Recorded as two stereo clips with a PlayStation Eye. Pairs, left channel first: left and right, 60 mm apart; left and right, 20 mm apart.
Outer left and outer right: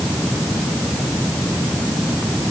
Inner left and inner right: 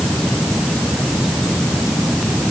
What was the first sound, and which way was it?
Only background noise.